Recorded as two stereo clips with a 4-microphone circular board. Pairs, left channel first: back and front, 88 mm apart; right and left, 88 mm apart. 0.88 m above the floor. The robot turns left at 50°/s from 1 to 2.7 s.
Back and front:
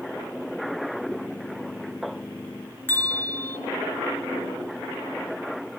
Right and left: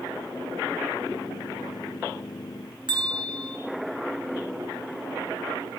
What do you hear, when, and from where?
2.9 s a bell: 115° left, 2.5 m